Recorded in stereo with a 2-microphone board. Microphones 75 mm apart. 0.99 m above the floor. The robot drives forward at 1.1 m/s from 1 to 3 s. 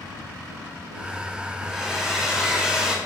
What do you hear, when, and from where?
1.6 s a hair dryer: 5° right (ahead or behind), 3.5 m; by 3.0 s 10° right (ahead or behind), 2.5 m